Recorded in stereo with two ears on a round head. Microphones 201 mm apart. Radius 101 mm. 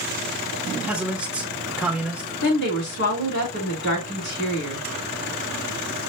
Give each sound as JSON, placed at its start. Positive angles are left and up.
{"t": 0.7, "sound": "a man speaking", "side_deg": -5, "distance_m": 1.1}
{"t": 2.4, "sound": "a woman speaking", "side_deg": 60, "distance_m": 3.0}